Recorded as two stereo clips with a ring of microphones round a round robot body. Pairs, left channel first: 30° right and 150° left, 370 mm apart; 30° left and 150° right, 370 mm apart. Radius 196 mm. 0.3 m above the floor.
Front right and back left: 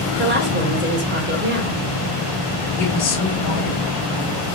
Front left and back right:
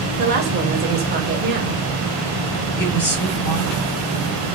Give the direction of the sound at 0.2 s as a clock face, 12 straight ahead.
6 o'clock.